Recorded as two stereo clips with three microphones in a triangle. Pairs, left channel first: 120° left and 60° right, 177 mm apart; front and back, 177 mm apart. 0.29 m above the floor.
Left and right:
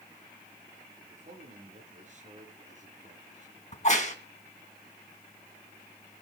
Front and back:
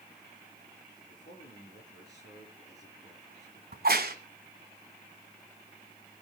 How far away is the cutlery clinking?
No cutlery clinking in this recording.